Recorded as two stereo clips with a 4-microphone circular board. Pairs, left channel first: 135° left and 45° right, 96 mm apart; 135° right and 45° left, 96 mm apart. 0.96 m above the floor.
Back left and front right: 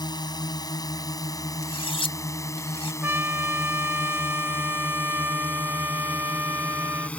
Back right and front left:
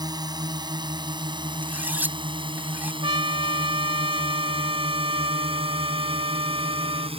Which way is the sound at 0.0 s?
90° left.